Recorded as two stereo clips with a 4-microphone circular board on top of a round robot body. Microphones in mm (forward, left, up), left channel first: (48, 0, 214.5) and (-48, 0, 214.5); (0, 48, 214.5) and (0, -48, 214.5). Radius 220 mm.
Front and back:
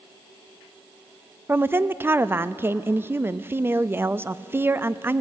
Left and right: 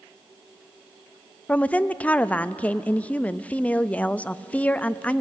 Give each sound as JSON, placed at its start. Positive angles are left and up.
{"t": 1.5, "sound": "a woman speaking", "azimuth_deg": 150, "distance_m": 0.7}